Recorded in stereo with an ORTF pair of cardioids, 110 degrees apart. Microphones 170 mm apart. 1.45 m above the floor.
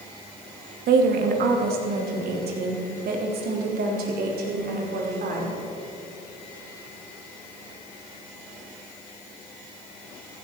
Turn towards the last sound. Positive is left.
turn(degrees=-65)